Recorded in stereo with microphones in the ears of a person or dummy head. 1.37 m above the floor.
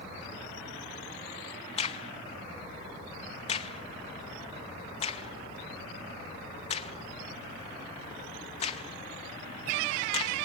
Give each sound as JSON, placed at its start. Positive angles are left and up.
{"t": 1.8, "sound": "a crack", "side_deg": 40, "distance_m": 0.7}